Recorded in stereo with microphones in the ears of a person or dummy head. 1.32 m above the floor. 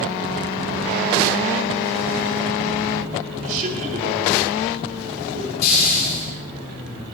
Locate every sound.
3.4 s a man speaking: 50° right (ahead or behind), 5.5 m
5.6 s a hiss: 60° left (ahead or behind), 7 m